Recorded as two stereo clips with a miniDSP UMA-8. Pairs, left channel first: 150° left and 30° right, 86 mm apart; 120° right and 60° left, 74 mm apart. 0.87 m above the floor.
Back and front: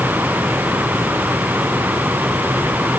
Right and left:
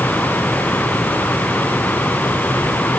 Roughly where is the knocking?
I don't hear knocking.